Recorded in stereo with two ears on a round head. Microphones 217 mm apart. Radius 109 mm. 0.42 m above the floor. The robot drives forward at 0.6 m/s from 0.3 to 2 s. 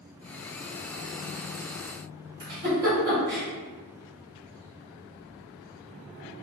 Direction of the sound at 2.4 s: 40° right (ahead or behind).